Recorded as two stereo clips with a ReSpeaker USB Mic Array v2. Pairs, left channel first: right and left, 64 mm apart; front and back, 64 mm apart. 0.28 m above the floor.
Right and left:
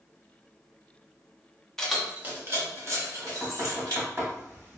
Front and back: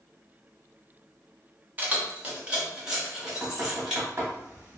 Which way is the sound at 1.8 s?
160° right.